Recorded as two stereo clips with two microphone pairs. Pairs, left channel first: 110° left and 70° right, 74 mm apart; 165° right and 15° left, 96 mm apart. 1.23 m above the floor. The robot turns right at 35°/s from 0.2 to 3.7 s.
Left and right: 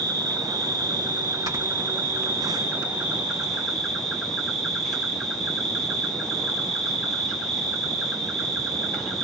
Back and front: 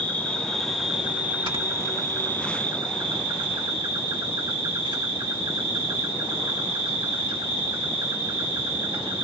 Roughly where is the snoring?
Ahead right.